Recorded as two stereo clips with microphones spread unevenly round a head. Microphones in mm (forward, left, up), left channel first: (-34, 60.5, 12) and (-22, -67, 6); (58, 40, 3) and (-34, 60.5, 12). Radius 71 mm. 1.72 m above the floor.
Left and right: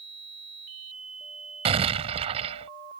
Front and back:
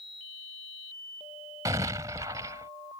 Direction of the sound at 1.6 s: 125° right.